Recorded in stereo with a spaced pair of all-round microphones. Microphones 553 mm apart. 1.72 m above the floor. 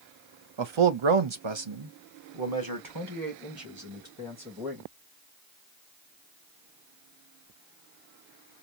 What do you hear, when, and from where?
0.6 s a man speaking: 55° right (ahead or behind), 0.7 m; by 4.9 s 25° right (ahead or behind), 2.5 m